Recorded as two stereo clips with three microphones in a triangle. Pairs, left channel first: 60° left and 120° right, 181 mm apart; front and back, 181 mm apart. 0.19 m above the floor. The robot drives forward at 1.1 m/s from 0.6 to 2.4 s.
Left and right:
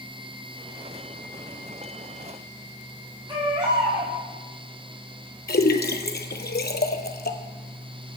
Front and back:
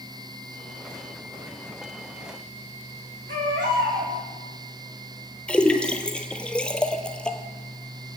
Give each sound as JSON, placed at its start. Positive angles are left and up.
{"t": 3.3, "sound": "a baby crying", "azimuth_deg": 175, "distance_m": 4.0}
{"t": 5.5, "sound": "a splash", "azimuth_deg": 85, "distance_m": 0.8}